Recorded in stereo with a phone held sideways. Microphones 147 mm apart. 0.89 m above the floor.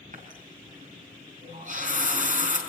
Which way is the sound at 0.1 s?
60° right (ahead or behind).